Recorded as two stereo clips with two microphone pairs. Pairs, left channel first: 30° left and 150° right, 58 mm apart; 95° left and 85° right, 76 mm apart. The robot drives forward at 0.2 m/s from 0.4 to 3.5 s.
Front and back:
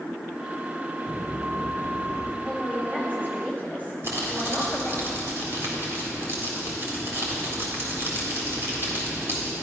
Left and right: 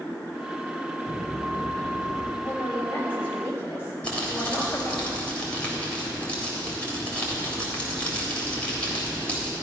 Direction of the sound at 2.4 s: 150° left.